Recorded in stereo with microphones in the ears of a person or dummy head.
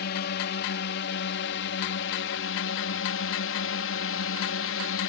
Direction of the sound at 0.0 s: 55° left (ahead or behind).